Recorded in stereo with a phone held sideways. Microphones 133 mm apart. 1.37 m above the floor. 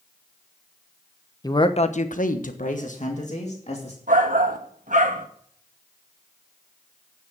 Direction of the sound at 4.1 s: 80° right.